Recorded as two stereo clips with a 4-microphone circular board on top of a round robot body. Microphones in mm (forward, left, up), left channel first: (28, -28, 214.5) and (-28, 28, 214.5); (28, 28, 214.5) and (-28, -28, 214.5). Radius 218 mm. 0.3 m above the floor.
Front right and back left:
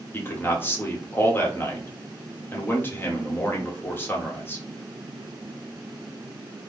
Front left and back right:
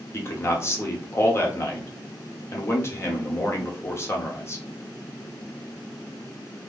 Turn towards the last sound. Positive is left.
turn(degrees=5)